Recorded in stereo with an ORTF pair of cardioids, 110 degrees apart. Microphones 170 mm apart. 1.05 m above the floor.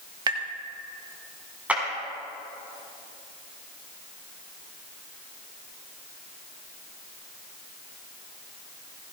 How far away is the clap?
About 6 m.